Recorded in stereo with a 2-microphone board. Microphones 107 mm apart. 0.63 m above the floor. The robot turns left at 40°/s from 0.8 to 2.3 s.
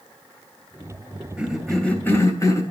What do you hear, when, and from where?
1.4 s a cough: 170° right, 3 m; by 2.6 s 150° left, 3 m